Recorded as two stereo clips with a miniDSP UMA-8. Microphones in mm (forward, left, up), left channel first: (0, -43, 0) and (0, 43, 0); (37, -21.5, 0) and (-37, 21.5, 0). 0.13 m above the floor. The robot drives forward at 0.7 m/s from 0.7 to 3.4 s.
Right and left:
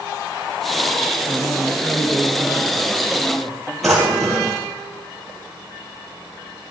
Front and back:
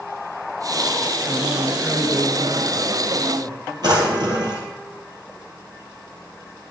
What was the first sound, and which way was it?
A man speaking, 90° right.